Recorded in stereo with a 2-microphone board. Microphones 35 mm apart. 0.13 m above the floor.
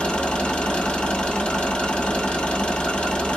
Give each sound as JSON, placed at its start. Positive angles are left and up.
{"t": 0.0, "sound": "an engine running", "side_deg": 25, "distance_m": 1.8}